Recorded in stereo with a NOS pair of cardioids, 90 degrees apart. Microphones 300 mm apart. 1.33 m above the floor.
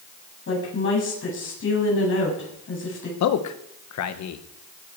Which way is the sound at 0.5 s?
40° left.